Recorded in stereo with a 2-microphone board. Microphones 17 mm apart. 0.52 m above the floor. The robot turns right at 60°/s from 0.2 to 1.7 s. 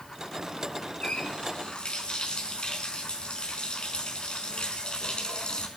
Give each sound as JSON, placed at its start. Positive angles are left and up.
{"t": 1.0, "sound": "a running tap", "azimuth_deg": 75, "distance_m": 4.5}